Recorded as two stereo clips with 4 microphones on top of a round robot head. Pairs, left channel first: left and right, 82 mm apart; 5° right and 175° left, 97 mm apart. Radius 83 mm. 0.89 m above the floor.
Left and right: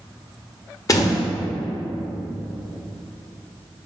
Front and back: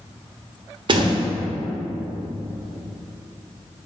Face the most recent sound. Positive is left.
turn(degrees=140)